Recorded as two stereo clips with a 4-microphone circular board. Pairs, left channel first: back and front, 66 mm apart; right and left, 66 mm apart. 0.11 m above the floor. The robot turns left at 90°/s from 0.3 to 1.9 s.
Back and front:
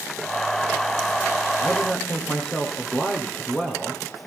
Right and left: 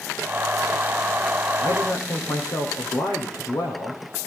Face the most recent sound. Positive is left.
turn(degrees=-105)